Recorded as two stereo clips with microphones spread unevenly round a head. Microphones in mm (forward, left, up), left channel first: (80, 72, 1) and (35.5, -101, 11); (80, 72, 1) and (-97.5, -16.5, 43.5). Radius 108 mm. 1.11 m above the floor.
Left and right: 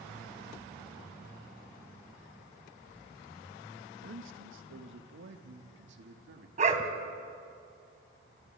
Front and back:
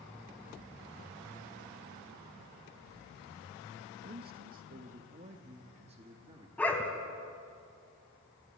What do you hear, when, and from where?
4.0 s a man speaking: 105° right, 1.6 m; by 6.5 s 85° right, 2.5 m
6.6 s a dog barking: 65° right, 1.9 m